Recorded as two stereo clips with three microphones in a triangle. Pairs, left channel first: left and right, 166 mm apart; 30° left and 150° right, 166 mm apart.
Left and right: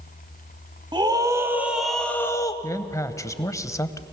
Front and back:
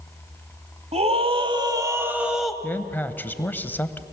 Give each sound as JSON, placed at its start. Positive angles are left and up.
{"t": 0.9, "sound": "a scream", "azimuth_deg": -135, "distance_m": 1.4}
{"t": 2.6, "sound": "a man speaking", "azimuth_deg": 80, "distance_m": 0.9}